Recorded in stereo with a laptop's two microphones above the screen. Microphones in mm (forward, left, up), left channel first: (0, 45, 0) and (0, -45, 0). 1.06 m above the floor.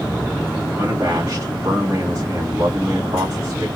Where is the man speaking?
30° right (ahead or behind), 2 m.